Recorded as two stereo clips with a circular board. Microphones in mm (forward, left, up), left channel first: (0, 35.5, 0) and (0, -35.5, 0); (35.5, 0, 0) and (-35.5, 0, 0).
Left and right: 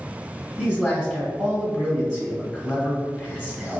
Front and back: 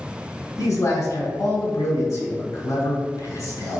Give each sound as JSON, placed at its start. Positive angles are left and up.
{"t": 0.6, "sound": "a man speaking", "azimuth_deg": -15, "distance_m": 1.4}